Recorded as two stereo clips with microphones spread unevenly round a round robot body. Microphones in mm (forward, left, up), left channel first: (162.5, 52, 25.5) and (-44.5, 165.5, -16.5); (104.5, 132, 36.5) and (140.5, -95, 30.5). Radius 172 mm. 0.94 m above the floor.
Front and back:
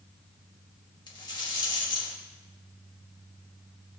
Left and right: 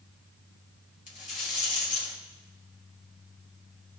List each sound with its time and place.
1.1 s a rattle: 40° left, 2.5 m